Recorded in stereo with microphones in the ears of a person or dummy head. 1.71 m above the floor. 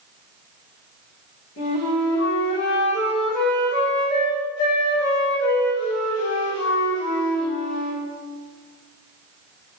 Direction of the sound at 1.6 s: 55° left (ahead or behind).